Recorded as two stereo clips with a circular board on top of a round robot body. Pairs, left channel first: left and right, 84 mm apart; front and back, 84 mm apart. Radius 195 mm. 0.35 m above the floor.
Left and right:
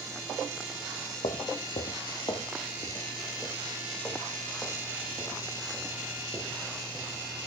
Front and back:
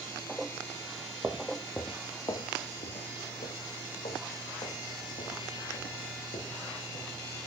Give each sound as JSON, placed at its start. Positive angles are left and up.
{"t": 1.2, "sound": "footsteps", "azimuth_deg": 110, "distance_m": 0.9}